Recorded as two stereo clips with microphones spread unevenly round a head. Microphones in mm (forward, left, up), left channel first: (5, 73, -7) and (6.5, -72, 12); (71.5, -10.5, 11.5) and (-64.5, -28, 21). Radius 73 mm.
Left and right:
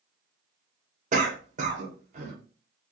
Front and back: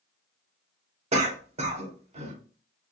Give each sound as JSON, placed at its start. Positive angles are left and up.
{"t": 1.1, "sound": "a cough", "azimuth_deg": -130, "distance_m": 0.8}